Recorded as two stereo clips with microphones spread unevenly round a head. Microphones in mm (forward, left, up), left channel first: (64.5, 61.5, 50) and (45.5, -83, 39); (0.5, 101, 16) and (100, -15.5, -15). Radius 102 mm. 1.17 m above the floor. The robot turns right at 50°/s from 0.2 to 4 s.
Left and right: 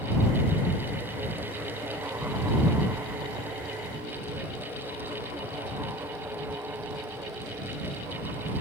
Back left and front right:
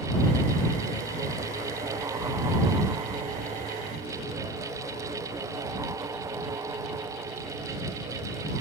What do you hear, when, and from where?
Only background noise.